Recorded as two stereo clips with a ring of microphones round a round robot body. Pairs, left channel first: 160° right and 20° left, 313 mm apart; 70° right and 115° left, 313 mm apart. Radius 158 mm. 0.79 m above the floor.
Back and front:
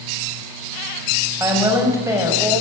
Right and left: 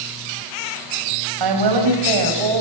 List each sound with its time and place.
1.4 s a woman speaking: 105° left, 5 m